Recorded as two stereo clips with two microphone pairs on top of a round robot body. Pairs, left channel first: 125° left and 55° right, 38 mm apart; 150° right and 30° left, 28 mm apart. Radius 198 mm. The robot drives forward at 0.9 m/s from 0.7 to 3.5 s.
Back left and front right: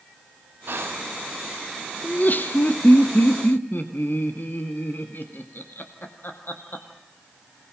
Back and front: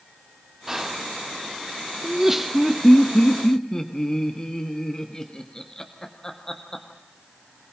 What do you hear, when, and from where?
0.7 s whispering: 45° right, 1.6 m; by 1.1 s 55° right, 1.4 m
2.0 s laughter: 95° left, 1.3 m; by 6.8 s 145° left, 1.9 m